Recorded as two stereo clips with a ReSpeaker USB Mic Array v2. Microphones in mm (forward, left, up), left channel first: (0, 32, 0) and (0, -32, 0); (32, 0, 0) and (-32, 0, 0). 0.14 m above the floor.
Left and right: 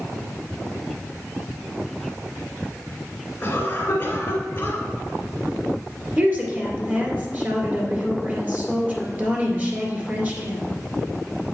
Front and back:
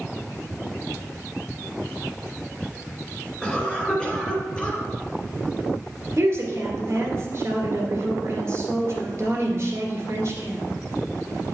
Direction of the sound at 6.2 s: 145° right.